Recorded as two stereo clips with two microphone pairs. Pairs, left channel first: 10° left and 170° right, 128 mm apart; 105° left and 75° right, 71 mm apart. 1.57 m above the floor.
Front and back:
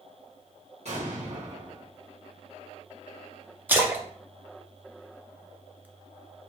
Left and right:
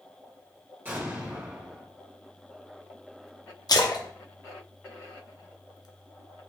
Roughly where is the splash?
Behind left.